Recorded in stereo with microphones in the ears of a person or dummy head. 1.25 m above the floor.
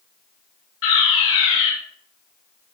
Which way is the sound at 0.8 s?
80° left.